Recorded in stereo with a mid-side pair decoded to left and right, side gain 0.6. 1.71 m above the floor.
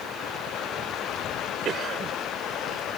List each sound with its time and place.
1.6 s a cough: 45° right